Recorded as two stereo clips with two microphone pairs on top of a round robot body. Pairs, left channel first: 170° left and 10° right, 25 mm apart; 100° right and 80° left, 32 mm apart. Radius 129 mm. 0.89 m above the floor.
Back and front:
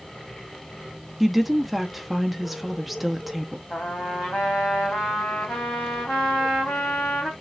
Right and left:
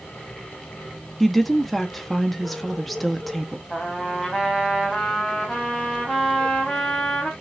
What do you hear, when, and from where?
1.2 s a woman speaking: 60° right, 0.8 m
3.7 s a trumpet: 160° left, 0.8 m